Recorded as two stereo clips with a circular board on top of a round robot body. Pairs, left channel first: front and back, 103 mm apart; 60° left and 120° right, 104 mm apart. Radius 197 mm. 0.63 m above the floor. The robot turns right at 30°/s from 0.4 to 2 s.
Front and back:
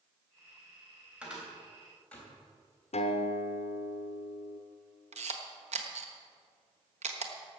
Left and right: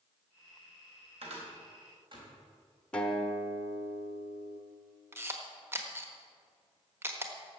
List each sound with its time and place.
1.2 s a cupboard door: 100° right, 4 m; by 2.3 s 80° right, 4 m
2.9 s a guitar: 20° right, 0.9 m
5.1 s a camera shutter: 170° left, 1.3 m